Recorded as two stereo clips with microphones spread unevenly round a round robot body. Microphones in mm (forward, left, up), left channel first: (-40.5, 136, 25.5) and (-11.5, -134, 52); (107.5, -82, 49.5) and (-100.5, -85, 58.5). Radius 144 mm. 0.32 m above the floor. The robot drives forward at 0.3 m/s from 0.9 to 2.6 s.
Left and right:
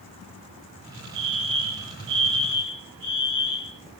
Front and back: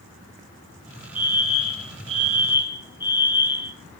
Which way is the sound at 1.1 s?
90° right.